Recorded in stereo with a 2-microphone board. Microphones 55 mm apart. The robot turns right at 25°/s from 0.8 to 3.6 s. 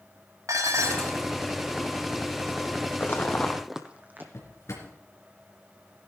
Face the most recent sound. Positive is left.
turn(degrees=60)  # may be behind; listen again after turning